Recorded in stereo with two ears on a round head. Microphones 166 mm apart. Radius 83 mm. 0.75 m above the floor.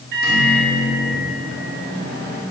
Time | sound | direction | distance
0.1 | a microwave | 55° right (ahead or behind) | 1.6 m